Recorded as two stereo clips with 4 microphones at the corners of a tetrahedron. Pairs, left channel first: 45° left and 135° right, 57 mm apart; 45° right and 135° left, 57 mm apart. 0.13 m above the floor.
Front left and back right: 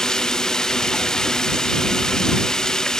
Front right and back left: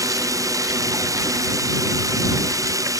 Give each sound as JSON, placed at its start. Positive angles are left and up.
{"t": 0.0, "sound": "running water", "azimuth_deg": 125}